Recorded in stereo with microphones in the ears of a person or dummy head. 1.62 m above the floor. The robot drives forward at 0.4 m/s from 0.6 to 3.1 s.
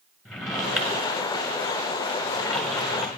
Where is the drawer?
Centre (ahead or behind), 1.0 m.